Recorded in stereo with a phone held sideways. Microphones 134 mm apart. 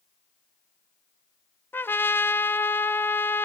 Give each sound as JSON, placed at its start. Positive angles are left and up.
{"t": 1.7, "sound": "a trumpet", "side_deg": 15, "distance_m": 0.5}